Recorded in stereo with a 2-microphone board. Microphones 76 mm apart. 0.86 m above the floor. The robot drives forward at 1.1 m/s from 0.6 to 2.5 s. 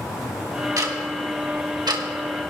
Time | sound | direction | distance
0.8 | ticking | 50° right (ahead or behind) | 1.7 m